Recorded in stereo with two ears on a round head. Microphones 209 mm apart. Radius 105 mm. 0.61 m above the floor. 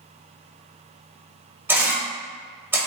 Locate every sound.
1.7 s a camera shutter: 10° right (ahead or behind), 1.0 m